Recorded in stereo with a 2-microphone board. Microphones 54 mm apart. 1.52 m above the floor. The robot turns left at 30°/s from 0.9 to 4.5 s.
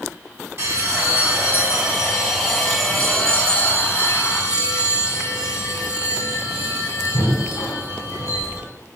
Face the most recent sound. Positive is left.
turn(degrees=125)